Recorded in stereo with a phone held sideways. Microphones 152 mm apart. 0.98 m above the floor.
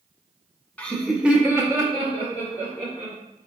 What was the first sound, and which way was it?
Laughter, 10° left (ahead or behind).